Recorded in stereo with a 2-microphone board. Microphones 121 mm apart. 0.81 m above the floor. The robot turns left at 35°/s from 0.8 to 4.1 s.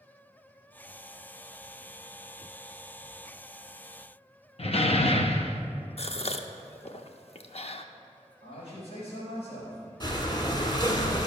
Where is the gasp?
55° left (ahead or behind), 0.6 m.